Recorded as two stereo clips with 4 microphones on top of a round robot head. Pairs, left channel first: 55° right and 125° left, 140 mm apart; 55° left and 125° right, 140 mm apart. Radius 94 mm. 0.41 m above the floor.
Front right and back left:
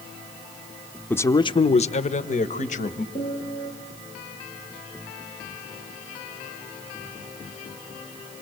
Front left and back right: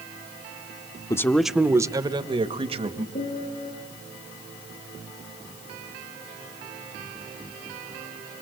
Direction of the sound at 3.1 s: 5° left.